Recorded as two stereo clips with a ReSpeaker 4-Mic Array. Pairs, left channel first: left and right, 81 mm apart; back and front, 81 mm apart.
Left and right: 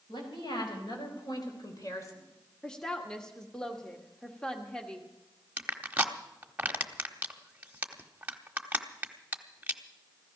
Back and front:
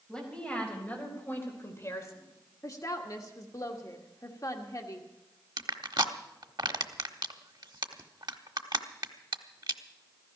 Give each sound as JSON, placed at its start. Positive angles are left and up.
{"t": 0.1, "sound": "a woman speaking", "azimuth_deg": 100, "distance_m": 4.5}
{"t": 2.6, "sound": "a woman speaking", "azimuth_deg": 165, "distance_m": 1.3}
{"t": 5.6, "sound": "crushing", "azimuth_deg": -20, "distance_m": 1.0}